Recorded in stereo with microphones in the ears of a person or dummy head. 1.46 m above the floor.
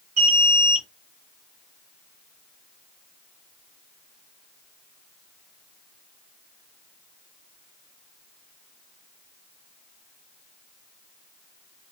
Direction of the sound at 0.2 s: 50° right (ahead or behind).